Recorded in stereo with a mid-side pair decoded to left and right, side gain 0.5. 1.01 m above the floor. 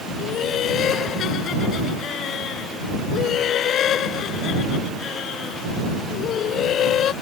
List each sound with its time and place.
0.2 s laughter: 60° left